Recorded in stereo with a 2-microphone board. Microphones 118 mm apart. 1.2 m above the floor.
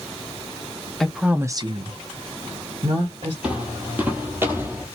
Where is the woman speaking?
5° left (ahead or behind), 0.7 m; by 3.3 s 60° right (ahead or behind), 1.5 m.